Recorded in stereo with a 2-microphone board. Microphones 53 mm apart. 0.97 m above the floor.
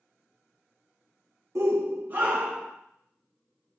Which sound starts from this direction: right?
A shout, at 1.6 s.